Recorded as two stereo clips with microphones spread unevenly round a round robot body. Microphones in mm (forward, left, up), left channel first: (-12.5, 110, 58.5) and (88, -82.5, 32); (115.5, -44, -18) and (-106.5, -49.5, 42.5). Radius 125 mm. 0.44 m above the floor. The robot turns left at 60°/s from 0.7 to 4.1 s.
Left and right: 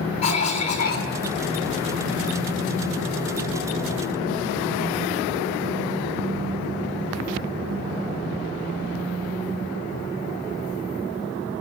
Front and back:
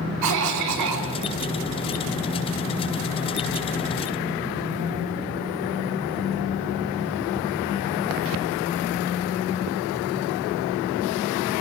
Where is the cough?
Straight behind, 4.5 m; by 1.1 s 160° left, 4.5 m.